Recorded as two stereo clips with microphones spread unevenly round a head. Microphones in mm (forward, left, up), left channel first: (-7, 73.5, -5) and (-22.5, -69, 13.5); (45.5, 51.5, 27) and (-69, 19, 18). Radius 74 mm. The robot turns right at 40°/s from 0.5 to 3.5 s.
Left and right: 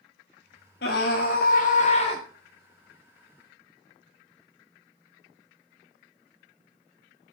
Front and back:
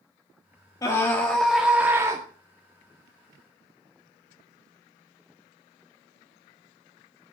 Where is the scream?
75° left, 1.9 m; by 2.2 s 135° left, 1.9 m.